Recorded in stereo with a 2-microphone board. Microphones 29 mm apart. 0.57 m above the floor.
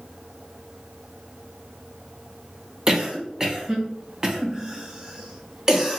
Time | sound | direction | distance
2.9 | a cough | 15° right (ahead or behind) | 0.7 m